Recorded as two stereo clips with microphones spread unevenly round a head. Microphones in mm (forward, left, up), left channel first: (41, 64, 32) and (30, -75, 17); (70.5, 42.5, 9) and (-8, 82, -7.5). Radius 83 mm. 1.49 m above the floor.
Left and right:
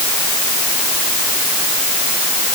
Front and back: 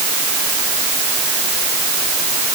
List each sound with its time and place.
Only background noise.